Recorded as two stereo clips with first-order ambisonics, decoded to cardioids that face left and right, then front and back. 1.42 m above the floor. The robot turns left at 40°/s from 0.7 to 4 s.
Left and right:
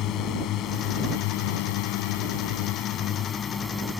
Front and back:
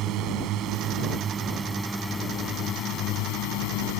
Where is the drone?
135° left; by 4.0 s 5° left.